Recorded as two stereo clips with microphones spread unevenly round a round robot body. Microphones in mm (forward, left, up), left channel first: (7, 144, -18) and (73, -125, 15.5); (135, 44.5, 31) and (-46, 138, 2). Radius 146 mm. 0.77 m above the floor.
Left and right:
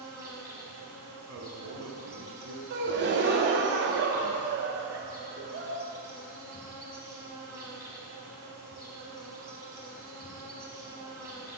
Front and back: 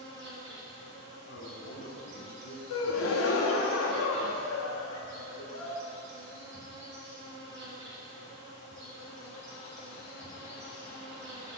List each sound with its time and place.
0.0 s an insect: 160° right, 1.1 m
1.3 s a man speaking: 35° right, 0.9 m
2.7 s a gasp: 25° right, 0.7 m